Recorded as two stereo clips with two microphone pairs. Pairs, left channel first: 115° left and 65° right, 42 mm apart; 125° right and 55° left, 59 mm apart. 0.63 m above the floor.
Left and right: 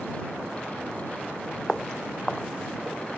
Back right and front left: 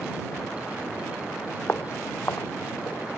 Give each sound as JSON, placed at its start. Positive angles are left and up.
{"t": 1.7, "sound": "footsteps", "azimuth_deg": -170}